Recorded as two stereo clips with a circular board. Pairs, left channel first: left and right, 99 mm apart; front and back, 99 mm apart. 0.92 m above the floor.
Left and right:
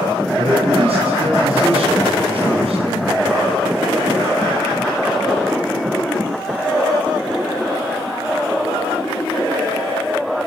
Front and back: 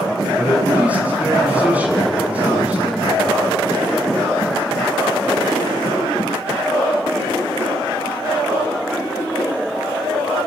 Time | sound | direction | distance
0.4 | a man speaking | 105° right | 7.5 m